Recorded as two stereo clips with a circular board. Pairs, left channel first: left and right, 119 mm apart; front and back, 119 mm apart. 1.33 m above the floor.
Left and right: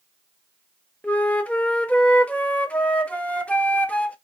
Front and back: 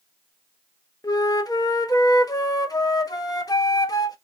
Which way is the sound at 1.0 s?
20° left.